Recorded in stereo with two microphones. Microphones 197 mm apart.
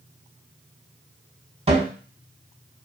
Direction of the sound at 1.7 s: 30° right (ahead or behind).